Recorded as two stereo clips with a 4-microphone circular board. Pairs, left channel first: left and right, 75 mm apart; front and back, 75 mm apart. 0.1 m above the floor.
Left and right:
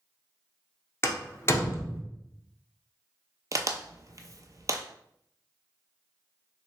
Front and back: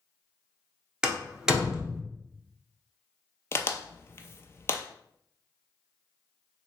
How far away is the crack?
About 0.5 m.